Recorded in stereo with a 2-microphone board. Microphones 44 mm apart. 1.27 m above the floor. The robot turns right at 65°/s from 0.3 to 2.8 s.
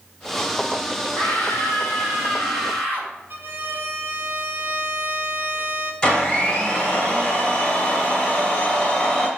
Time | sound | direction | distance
1.1 | a scream | 30° left | 5 m
3.3 | a violin | 50° right (ahead or behind) | 1.3 m
6.0 | a blender | 25° left (ahead or behind) | 2.5 m